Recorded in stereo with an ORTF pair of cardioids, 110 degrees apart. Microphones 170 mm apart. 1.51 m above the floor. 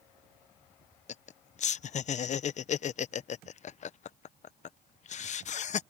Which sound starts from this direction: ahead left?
Laughter, at 1.1 s.